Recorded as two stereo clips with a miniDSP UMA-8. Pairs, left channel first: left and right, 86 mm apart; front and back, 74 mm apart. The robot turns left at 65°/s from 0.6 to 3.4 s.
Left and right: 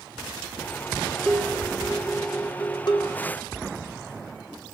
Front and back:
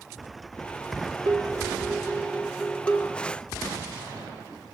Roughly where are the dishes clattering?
Behind.